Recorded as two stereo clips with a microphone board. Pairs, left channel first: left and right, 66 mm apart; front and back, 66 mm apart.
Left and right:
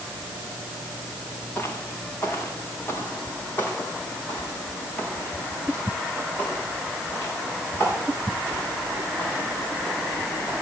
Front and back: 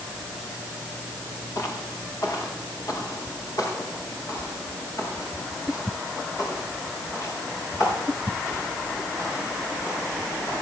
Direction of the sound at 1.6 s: 35° left.